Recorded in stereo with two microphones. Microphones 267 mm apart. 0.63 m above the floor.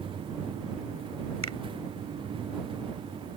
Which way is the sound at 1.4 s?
75° left (ahead or behind).